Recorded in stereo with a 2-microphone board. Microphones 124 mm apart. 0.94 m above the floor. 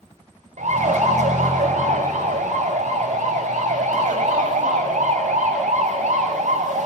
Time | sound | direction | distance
0.6 | a siren | 80° right | 6 m